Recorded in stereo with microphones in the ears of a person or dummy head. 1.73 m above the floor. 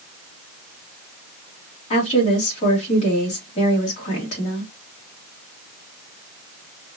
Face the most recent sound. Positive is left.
turn(degrees=40)  # may be behind; listen again after turning